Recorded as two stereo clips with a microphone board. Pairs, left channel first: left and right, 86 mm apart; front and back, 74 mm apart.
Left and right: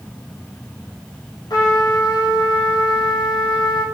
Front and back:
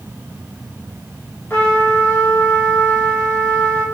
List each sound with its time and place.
1.5 s a trumpet: 60° left, 2.5 m